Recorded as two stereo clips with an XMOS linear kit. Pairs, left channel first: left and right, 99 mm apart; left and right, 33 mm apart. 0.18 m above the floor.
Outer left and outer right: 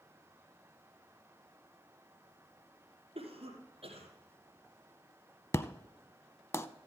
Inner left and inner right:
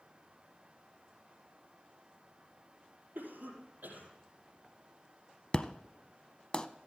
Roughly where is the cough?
Right.